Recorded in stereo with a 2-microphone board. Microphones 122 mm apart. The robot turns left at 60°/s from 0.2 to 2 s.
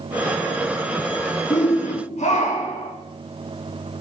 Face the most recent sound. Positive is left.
turn(degrees=75)